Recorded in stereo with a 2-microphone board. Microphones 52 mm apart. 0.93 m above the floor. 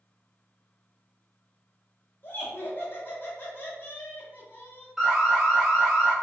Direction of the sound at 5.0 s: 5° right (ahead or behind).